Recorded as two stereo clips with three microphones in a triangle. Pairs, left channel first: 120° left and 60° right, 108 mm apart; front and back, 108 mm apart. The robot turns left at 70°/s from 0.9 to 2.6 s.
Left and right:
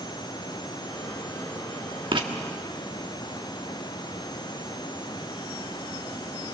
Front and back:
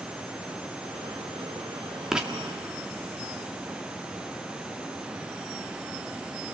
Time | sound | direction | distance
2.1 | writing | 95° right | 1.7 m